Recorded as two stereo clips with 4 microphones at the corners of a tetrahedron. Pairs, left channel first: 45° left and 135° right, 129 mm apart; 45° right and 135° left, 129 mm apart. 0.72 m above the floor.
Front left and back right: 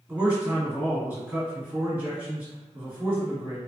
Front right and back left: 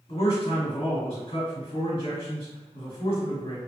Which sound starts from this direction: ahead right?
A man speaking, at 0.1 s.